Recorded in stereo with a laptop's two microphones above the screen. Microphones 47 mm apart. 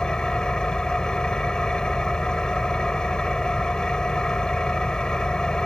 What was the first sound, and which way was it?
An engine running, 20° left (ahead or behind).